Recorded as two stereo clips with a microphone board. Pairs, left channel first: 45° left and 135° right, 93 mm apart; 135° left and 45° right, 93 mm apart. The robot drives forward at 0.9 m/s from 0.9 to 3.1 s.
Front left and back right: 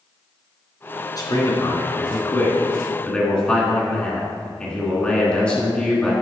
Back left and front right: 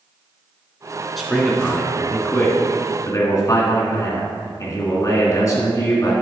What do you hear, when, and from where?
1.2 s a man speaking: 45° left, 2.5 m; by 6.1 s 115° left, 2 m